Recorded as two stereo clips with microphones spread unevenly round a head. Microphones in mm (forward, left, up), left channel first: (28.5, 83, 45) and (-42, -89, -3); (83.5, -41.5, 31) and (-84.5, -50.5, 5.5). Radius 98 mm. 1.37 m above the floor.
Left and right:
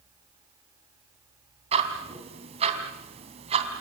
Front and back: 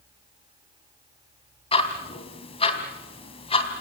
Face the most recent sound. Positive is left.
turn(degrees=-50)